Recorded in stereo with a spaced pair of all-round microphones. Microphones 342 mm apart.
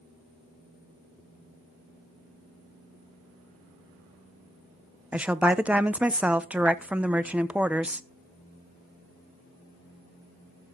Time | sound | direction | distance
5.1 | a woman speaking | 5° right (ahead or behind) | 0.6 m